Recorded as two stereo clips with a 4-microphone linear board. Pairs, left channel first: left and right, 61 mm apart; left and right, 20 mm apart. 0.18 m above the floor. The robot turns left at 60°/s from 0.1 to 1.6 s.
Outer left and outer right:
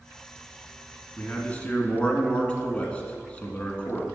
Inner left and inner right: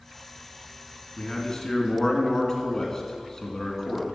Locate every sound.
1.2 s a man speaking: 35° left (ahead or behind), 1.4 m; by 4.0 s 20° left (ahead or behind), 1.4 m